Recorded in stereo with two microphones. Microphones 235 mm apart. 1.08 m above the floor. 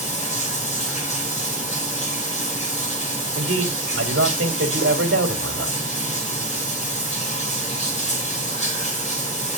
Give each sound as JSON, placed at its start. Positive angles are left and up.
{"t": 0.0, "sound": "running water", "side_deg": 30, "distance_m": 4.0}
{"t": 3.4, "sound": "a man speaking", "side_deg": -55, "distance_m": 2.5}